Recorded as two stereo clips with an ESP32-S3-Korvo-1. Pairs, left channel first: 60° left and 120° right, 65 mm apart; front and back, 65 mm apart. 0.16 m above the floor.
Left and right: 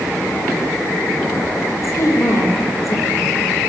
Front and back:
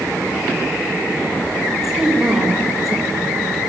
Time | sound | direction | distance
1.8 | a woman speaking | 95° left | 5.5 m